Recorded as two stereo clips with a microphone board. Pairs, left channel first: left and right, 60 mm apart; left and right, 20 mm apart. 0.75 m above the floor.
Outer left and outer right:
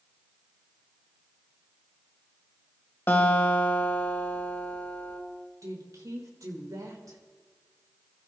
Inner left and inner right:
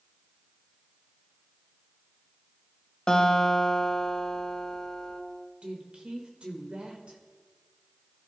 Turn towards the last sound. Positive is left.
turn(degrees=-70)  # may be behind; listen again after turning